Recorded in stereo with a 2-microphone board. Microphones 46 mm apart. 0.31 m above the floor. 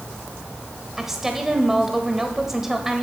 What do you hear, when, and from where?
1.0 s a woman speaking: 10° right (ahead or behind), 1.1 m